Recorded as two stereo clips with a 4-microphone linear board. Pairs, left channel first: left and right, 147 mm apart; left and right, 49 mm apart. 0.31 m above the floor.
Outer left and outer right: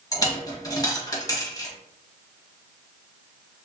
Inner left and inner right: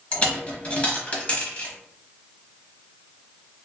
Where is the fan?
I don't hear a fan.